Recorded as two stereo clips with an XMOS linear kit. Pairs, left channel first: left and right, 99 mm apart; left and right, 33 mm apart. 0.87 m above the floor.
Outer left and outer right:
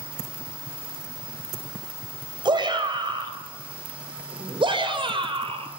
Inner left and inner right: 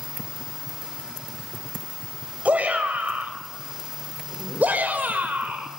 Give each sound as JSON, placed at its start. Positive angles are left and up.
{"t": 2.5, "sound": "a shout", "side_deg": -55, "distance_m": 5.5}